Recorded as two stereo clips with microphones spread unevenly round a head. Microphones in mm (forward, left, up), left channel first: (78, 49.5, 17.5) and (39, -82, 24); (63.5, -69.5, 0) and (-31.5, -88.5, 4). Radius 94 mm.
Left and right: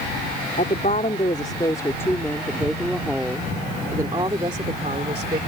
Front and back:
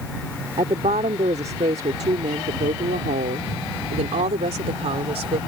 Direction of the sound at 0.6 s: 130° left.